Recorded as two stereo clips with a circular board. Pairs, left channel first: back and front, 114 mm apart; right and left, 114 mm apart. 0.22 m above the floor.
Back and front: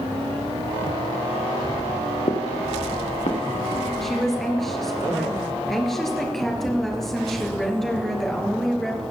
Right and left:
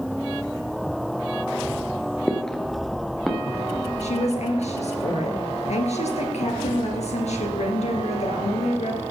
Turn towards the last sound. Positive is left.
turn(degrees=-90)